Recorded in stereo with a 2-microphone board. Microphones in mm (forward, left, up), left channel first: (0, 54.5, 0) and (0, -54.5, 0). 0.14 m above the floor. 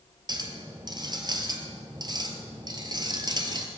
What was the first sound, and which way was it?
A clink, 40° right (ahead or behind).